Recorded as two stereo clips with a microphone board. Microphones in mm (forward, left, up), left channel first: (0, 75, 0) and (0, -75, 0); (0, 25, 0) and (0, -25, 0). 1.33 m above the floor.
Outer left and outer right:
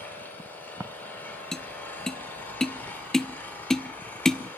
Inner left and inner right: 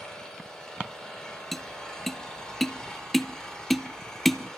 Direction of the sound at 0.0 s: 15° left (ahead or behind).